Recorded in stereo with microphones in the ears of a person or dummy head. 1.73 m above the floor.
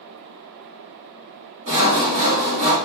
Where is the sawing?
35° right (ahead or behind), 1.5 m.